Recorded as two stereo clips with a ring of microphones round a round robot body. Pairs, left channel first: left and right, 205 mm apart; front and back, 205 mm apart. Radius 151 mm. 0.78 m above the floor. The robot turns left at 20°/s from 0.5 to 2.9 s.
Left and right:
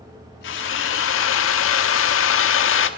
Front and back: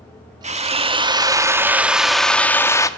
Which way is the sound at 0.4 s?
125° left.